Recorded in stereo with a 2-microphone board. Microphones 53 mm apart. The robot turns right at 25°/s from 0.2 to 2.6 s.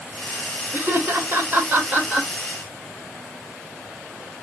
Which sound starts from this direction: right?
Laughter, at 0.7 s.